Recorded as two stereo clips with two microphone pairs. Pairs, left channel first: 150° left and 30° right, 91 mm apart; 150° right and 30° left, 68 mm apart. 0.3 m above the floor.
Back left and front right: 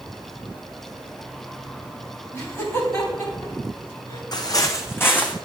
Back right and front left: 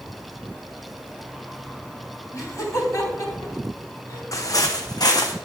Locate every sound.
2.3 s laughter: 160° right, 2.5 m; by 4.2 s 170° right, 3.5 m
4.3 s footsteps: straight behind, 0.8 m; by 5.3 s 140° right, 0.9 m